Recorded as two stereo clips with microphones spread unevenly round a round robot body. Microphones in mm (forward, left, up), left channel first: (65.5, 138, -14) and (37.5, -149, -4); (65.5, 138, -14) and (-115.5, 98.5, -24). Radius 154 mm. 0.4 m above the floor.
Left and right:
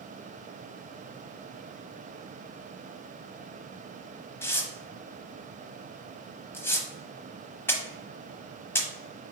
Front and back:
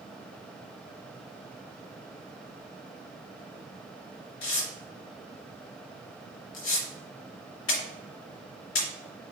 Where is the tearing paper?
Straight ahead, 0.9 m.